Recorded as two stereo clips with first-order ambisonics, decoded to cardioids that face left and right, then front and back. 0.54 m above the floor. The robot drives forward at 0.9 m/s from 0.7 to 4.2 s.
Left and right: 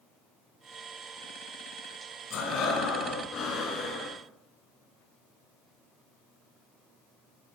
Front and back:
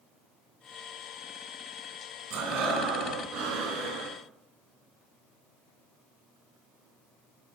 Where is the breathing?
140° left, 2.5 m; by 4.2 s 155° left, 4 m.